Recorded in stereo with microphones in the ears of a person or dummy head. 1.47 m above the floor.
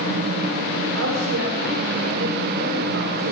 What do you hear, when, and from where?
0.9 s a woman speaking: 75° right (ahead or behind), 6 m